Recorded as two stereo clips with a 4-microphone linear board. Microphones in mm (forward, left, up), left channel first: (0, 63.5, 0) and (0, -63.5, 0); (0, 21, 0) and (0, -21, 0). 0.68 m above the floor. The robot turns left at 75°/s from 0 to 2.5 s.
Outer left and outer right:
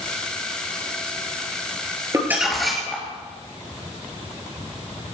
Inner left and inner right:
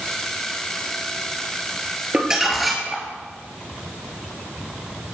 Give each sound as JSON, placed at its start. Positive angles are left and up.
{"t": 2.1, "sound": "crumpling", "side_deg": -25, "distance_m": 4.5}